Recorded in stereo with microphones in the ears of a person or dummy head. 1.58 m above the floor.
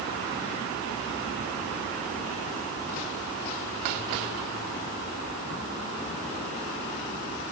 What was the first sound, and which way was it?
Only background noise.